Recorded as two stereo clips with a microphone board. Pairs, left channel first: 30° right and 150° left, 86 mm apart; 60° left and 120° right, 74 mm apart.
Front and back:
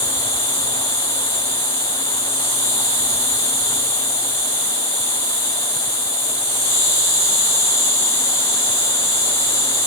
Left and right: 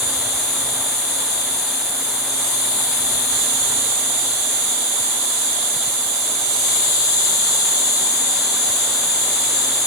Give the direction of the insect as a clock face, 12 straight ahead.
11 o'clock.